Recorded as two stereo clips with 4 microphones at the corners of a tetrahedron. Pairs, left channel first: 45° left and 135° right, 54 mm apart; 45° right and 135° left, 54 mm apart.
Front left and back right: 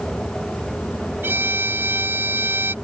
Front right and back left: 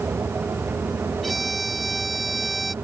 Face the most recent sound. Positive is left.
turn(degrees=-135)